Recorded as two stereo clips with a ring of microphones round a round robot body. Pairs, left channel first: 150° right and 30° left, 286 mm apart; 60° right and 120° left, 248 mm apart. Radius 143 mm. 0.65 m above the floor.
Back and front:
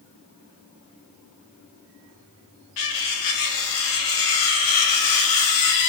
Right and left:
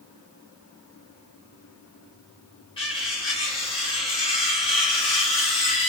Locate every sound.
2.8 s cutlery clinking: 135° right, 0.6 m